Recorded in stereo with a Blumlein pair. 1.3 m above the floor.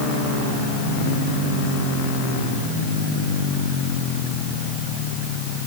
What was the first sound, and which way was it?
Only background noise.